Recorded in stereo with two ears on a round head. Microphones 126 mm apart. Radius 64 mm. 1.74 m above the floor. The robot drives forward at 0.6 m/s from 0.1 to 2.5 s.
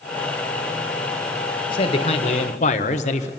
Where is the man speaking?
35° left (ahead or behind), 1.5 m; by 3.3 s 50° left (ahead or behind), 1.1 m.